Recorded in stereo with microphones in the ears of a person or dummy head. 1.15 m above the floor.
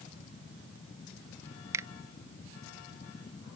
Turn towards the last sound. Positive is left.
turn(degrees=-20)  # may be behind; listen again after turning